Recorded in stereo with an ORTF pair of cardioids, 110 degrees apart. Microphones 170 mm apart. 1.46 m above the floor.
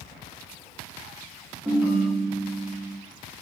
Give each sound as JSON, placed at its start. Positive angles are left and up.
{"t": 1.6, "sound": "a ringtone", "azimuth_deg": -10, "distance_m": 1.6}